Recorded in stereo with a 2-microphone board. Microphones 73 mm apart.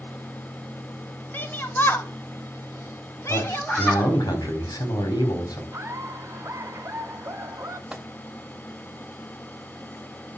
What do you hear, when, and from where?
1.3 s a shout: 25° left (ahead or behind), 2 m; by 4.1 s 20° left (ahead or behind), 1.6 m
3.3 s a man speaking: 85° left, 4.5 m
5.7 s laughter: 40° right (ahead or behind), 2 m
7.9 s a microwave: 10° right (ahead or behind), 1.4 m